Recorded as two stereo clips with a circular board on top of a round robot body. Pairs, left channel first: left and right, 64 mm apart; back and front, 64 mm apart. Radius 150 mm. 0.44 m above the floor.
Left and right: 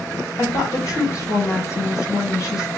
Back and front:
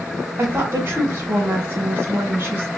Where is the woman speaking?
50° left, 3 m.